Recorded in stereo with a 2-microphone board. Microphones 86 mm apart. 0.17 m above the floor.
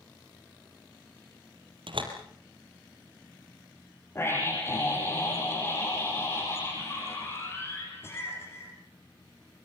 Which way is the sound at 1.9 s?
75° right (ahead or behind).